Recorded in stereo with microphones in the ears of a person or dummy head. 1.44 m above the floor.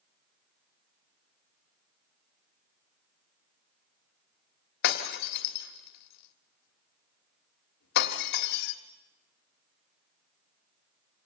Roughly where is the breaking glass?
Left.